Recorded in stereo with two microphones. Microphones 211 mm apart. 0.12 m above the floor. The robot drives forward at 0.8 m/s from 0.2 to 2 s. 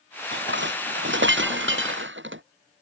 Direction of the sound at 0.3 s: 60° right (ahead or behind).